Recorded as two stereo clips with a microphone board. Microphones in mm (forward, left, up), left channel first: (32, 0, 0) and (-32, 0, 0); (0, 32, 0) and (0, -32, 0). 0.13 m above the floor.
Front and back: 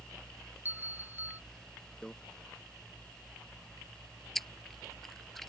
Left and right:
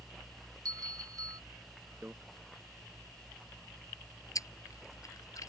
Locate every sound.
0.7 s a bell: 120° right
2.0 s a microwave: 70° right
4.3 s chewing: 85° left